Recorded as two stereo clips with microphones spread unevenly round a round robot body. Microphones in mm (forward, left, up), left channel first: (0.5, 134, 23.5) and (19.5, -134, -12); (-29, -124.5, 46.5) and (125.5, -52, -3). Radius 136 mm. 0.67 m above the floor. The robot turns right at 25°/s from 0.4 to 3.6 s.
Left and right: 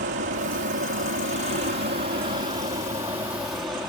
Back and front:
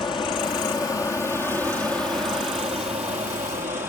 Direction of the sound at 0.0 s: 90° right.